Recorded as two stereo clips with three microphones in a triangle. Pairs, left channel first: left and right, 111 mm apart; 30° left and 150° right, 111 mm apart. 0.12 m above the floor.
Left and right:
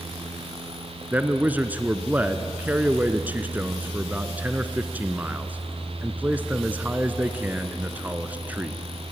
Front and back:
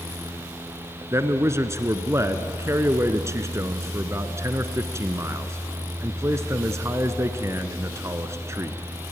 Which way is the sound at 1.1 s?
145° right.